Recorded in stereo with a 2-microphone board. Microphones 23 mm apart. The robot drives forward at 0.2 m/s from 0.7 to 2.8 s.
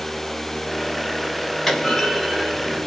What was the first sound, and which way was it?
A clunk, 10° left (ahead or behind).